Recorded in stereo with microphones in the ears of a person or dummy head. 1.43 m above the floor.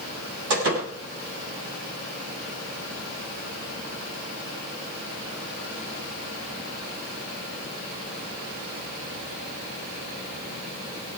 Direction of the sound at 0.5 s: 85° right.